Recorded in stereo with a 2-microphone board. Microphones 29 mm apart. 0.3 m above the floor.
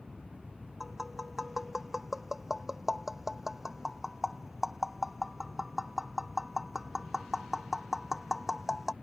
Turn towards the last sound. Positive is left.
turn(degrees=-10)  # may be behind; listen again after turning